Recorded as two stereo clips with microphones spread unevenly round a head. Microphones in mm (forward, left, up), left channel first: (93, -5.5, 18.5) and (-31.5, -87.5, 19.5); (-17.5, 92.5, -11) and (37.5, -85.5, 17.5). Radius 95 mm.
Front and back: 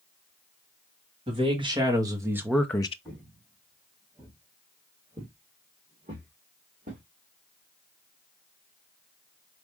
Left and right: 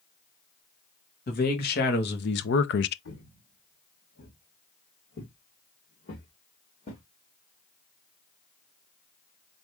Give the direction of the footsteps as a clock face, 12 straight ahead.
8 o'clock.